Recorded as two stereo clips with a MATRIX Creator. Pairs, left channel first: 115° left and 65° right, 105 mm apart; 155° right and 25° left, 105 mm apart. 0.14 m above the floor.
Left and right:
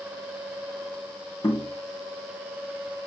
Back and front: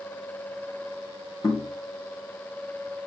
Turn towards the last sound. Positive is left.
turn(degrees=155)